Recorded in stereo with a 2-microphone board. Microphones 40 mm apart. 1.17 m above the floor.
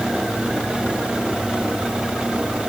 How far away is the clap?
I don't hear a clap.